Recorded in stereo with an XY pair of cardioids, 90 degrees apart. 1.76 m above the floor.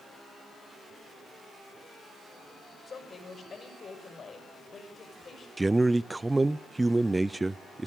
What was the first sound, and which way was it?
A woman speaking, 45° left.